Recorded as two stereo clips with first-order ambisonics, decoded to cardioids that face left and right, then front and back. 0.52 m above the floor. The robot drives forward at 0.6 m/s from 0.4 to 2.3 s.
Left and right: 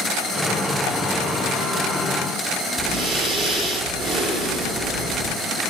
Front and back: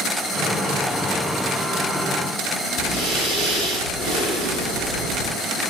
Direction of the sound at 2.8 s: 155° right.